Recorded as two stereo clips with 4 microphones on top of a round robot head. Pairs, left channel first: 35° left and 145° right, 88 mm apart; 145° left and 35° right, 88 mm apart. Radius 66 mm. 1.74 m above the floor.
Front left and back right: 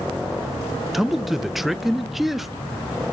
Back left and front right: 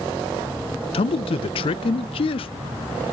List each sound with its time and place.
0.9 s a man speaking: 125° left, 0.5 m